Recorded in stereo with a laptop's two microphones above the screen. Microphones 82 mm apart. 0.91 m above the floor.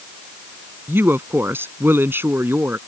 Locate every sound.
0.9 s a woman speaking: 25° right (ahead or behind)